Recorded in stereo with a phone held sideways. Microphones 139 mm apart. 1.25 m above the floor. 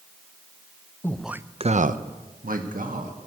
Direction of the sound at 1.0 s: 15° left (ahead or behind).